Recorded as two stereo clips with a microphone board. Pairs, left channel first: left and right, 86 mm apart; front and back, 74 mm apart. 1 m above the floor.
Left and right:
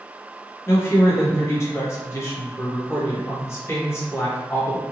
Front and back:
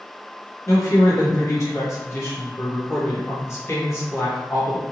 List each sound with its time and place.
0.7 s a woman speaking: 40° left, 1.2 m